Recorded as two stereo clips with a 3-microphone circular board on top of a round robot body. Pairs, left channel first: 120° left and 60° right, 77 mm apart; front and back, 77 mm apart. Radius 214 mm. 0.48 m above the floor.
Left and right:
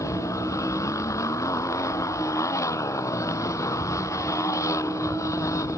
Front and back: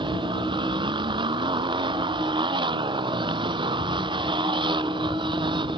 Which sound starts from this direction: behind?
A motorcycle, at 0.0 s.